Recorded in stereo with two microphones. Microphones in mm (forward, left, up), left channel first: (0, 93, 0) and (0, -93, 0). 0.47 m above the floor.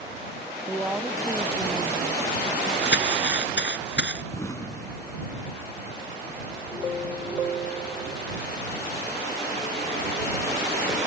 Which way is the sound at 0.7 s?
5° right (ahead or behind).